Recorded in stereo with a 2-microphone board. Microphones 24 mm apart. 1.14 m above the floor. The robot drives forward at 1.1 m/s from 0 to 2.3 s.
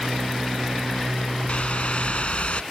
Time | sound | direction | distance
1.5 | a whoosh | 65° left (ahead or behind) | ?